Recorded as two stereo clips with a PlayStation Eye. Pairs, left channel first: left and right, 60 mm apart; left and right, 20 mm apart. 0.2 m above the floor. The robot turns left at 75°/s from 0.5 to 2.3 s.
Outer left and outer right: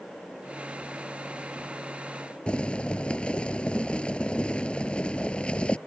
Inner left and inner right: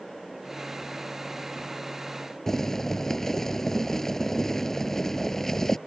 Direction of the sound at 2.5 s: 20° left (ahead or behind).